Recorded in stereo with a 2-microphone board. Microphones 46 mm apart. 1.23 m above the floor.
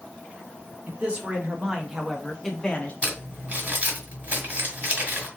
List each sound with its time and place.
0.9 s a man speaking: 35° right (ahead or behind), 1.5 m; by 2.9 s 25° left (ahead or behind), 1.0 m
3.0 s crumpling: 30° right (ahead or behind), 1.7 m